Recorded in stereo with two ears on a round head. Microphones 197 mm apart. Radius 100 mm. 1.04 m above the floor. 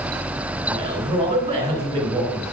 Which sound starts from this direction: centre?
A man speaking, at 0.7 s.